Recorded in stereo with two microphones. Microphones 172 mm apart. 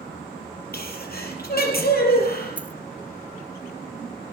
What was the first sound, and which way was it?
A sneeze, 65° left (ahead or behind).